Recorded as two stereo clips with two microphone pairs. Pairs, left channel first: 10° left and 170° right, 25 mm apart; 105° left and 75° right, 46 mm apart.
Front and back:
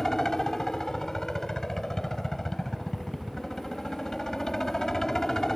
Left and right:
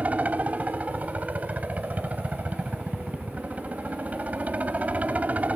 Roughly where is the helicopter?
Ahead right.